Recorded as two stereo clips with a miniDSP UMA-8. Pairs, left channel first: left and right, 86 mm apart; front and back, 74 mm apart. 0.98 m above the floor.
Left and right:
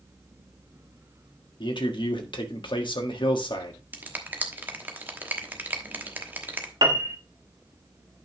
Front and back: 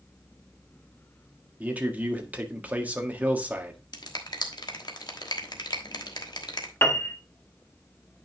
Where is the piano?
60° right, 1.2 m.